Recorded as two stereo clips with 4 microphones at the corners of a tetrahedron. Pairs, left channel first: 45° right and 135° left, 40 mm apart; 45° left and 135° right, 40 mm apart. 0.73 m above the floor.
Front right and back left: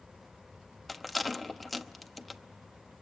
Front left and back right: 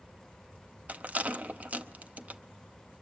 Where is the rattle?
135° right, 0.8 m.